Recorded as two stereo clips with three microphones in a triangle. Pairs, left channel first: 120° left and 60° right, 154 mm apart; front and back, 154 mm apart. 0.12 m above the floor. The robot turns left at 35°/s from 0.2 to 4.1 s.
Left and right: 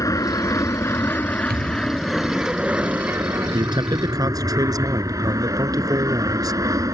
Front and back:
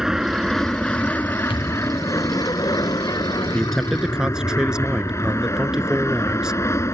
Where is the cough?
I don't hear a cough.